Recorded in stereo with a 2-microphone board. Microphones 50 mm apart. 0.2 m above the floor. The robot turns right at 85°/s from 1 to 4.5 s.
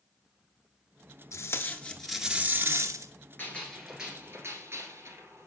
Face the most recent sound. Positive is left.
turn(degrees=-125)